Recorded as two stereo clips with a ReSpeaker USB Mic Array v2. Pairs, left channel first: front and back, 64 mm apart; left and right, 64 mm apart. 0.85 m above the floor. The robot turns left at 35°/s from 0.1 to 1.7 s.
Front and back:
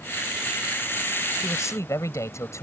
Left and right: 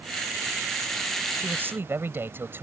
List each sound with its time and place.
1.4 s a man speaking: 25° right; by 2.6 s 35° right